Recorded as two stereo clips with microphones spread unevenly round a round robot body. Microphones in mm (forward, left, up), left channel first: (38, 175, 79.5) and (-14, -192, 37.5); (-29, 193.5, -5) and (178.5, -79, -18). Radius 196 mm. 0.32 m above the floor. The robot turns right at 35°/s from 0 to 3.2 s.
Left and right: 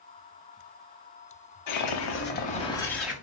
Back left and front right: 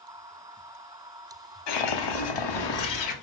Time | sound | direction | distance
1.7 | a whoosh | 125° left | 0.7 m